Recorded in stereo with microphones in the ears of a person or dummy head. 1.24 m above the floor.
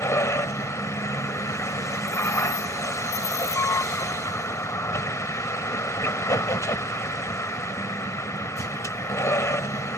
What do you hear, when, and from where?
0.0 s a vehicle: 15° left (ahead or behind)